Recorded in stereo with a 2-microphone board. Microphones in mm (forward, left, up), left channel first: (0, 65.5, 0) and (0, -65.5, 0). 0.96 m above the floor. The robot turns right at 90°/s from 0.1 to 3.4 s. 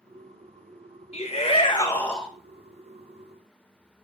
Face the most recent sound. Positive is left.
turn(degrees=-75)